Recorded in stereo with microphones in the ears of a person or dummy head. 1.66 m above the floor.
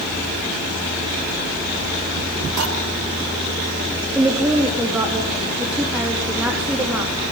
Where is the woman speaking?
5° right (ahead or behind), 3.5 m.